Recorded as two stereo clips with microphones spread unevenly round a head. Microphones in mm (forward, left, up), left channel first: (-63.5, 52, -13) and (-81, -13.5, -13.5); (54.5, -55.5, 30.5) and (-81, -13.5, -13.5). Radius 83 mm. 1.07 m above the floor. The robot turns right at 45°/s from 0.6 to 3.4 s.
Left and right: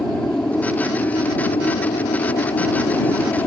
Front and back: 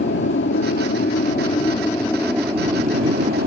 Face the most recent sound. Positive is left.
turn(degrees=125)